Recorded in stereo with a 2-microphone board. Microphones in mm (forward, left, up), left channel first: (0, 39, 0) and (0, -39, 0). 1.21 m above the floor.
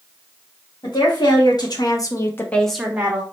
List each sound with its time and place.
0.8 s a woman speaking: 65° left (ahead or behind), 1.5 m; by 3.2 s 30° right (ahead or behind), 0.7 m